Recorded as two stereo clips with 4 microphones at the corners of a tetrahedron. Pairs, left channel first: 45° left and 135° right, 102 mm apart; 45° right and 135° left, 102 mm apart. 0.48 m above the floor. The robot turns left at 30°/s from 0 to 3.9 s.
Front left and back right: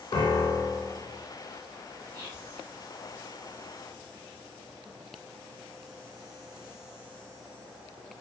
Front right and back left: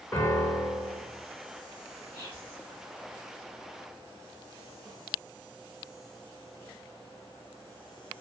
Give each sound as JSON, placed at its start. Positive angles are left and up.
{"t": 0.1, "sound": "a piano", "azimuth_deg": 15, "distance_m": 0.7}
{"t": 2.1, "sound": "whispering", "azimuth_deg": -100, "distance_m": 0.8}